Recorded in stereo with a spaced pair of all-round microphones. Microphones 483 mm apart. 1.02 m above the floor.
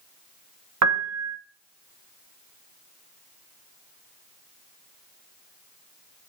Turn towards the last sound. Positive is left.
turn(degrees=-35)  # may be behind; listen again after turning